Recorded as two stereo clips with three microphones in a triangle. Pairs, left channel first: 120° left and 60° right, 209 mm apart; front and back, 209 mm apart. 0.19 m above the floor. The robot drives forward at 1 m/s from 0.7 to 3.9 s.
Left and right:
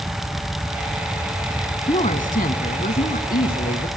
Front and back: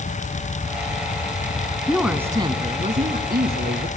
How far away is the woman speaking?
About 1.3 m.